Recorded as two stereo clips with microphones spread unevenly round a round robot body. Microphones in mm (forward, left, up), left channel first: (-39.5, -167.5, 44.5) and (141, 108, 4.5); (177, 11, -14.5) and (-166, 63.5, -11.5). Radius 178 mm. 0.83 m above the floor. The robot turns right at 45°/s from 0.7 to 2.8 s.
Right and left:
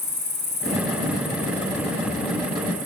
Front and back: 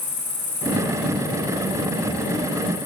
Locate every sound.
0.0 s an insect: 65° right, 6.5 m; by 2.9 s 25° left, 6.5 m